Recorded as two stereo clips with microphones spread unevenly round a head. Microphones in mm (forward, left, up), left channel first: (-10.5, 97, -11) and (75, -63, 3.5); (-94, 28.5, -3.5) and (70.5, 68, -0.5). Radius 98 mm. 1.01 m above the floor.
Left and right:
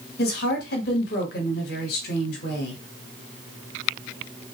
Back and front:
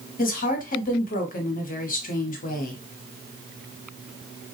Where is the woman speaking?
160° left, 1.1 m.